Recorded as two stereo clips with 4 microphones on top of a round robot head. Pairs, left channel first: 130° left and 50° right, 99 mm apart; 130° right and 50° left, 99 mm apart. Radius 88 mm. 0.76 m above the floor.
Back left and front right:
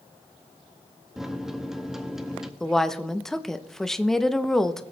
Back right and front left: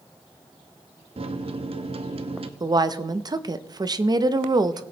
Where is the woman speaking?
45° left, 0.8 m.